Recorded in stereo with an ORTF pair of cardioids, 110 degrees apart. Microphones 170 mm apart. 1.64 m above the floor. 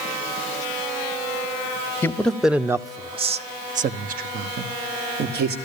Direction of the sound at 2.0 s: 15° left.